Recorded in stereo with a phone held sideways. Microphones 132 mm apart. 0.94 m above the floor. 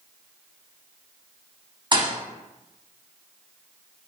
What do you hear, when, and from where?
1.9 s a thud: 35° right (ahead or behind), 0.6 m